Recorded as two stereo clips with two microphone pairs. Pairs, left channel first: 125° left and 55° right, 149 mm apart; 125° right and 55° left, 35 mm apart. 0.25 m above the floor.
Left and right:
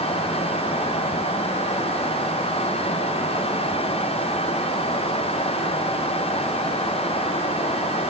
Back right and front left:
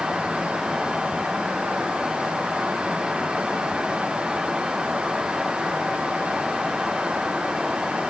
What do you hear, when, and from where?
Only background noise.